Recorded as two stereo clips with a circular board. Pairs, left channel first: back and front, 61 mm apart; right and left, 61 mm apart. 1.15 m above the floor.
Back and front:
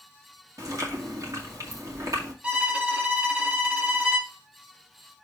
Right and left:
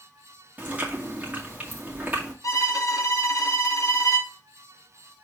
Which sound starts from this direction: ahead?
Chewing, at 0.6 s.